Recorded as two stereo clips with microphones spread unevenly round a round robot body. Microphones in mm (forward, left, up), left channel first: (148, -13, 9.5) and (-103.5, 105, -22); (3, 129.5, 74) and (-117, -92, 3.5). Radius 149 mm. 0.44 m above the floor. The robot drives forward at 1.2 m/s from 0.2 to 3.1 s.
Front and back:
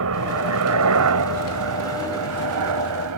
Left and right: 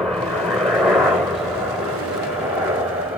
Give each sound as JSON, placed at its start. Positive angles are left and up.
{"t": 0.0, "sound": "a helicopter", "azimuth_deg": 165}